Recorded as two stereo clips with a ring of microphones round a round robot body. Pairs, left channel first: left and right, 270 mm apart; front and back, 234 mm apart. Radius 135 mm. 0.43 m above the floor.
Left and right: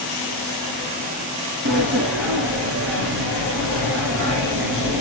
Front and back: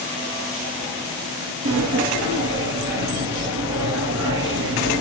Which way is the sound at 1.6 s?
135° right.